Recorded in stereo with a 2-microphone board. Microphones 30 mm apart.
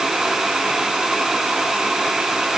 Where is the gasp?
No gasp in this recording.